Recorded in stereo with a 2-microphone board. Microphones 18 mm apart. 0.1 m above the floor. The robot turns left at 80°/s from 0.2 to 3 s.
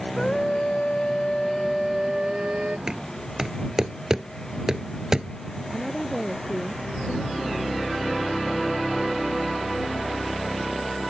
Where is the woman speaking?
15° left (ahead or behind).